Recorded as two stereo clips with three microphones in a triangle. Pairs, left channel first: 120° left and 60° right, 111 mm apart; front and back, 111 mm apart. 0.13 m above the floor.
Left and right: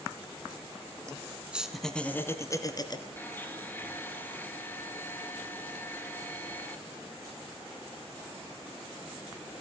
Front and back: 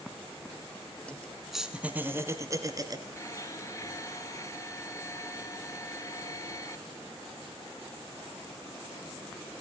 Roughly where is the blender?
Ahead left.